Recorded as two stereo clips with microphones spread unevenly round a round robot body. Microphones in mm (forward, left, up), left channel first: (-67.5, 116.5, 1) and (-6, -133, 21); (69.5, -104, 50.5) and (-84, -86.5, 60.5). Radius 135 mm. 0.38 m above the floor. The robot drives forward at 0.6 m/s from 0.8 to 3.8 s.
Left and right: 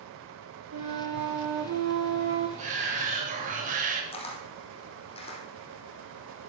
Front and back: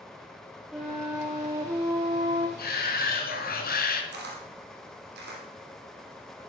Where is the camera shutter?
170° left, 4 m.